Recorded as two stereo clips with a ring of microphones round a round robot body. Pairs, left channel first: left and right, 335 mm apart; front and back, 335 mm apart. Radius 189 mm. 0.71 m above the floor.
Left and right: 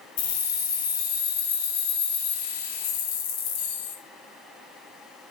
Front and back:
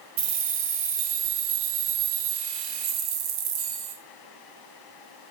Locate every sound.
0.2 s keys jangling: 130° left, 0.5 m